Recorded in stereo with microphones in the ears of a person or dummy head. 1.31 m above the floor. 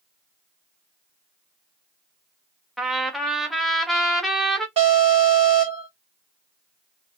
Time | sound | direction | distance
2.8 | a trumpet | centre (ahead or behind) | 0.9 m
4.8 | an alarm | 30° right (ahead or behind) | 1.9 m